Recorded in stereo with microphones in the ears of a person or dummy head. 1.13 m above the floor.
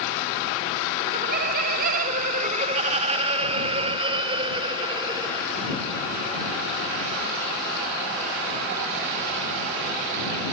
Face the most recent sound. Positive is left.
turn(degrees=-25)  # may be behind; listen again after turning